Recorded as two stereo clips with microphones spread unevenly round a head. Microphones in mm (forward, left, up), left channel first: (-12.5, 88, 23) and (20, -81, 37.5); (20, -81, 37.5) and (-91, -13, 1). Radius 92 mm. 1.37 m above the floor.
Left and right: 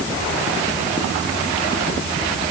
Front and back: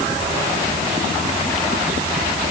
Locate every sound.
Only background noise.